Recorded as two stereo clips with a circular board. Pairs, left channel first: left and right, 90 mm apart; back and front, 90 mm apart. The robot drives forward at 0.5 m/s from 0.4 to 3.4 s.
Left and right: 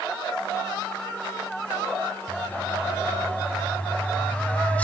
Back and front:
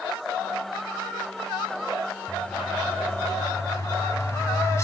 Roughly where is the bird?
Behind left.